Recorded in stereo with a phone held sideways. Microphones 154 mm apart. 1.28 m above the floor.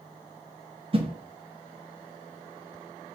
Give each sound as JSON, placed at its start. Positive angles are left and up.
{"t": 0.9, "sound": "a whoosh", "side_deg": -40, "distance_m": 0.8}